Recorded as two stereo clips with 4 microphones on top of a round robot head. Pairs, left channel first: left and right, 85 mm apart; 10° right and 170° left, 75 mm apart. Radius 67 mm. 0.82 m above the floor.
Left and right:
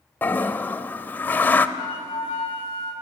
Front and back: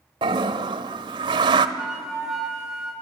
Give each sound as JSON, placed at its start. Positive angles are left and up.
{"t": 0.2, "sound": "a toilet flushing", "azimuth_deg": 160, "distance_m": 0.8}
{"t": 1.8, "sound": "a flute", "azimuth_deg": 90, "distance_m": 9.5}